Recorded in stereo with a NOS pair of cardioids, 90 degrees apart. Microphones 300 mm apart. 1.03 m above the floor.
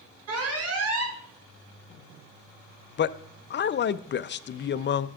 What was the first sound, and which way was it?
An alarm, 55° right.